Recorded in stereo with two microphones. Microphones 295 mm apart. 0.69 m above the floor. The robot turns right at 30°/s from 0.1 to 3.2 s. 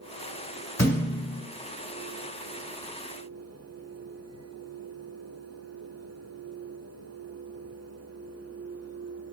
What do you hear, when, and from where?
0.8 s a thud: 55° left (ahead or behind), 1.5 m; by 1.4 s 75° left (ahead or behind), 1.5 m